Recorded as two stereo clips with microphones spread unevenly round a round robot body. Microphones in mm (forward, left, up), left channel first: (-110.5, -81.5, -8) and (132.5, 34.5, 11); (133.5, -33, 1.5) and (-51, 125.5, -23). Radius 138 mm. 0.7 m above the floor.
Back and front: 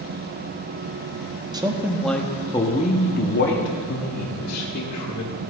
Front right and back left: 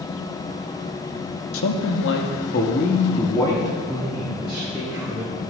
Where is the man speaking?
50° right, 1.0 m; by 5.3 s 140° right, 1.9 m.